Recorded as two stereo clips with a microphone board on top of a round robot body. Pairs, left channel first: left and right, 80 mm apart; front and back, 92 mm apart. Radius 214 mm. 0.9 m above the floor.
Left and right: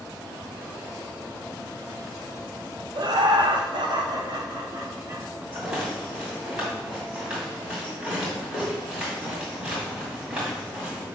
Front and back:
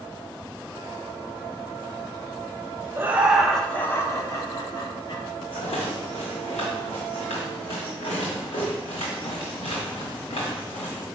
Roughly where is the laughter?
Behind right.